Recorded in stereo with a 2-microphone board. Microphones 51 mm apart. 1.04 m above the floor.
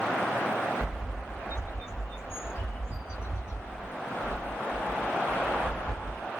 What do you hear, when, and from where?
0.8 s a bird: 50° left (ahead or behind), 2 m